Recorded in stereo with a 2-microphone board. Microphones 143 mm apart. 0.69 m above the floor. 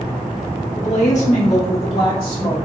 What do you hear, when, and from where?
0.8 s a woman speaking: 50° left (ahead or behind), 1.6 m; by 2.6 s 35° left (ahead or behind), 2.5 m